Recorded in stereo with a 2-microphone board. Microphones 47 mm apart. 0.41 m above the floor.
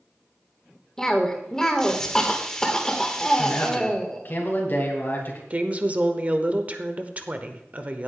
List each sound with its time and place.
1.0 s a cough: 15° left (ahead or behind), 1.4 m
3.4 s a man speaking: 45° left (ahead or behind), 2 m
5.5 s a woman speaking: 30° right (ahead or behind), 0.9 m